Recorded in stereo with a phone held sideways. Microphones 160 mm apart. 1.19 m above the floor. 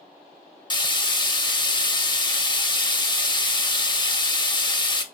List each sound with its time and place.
0.7 s frying: 30° left (ahead or behind), 0.5 m